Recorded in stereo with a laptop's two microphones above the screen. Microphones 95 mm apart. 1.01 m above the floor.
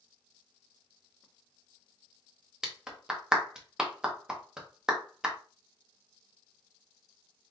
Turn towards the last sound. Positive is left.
turn(degrees=-10)  # may be behind; listen again after turning